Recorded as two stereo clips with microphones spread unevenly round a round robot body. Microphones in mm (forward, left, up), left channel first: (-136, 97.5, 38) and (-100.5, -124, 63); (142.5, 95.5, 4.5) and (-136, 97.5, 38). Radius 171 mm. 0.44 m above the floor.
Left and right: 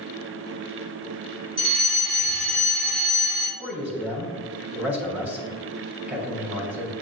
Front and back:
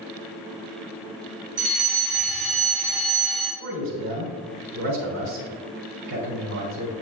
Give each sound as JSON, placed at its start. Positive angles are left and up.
{"t": 1.6, "sound": "a fire alarm", "azimuth_deg": -145, "distance_m": 3.0}
{"t": 3.6, "sound": "a man speaking", "azimuth_deg": -165, "distance_m": 3.5}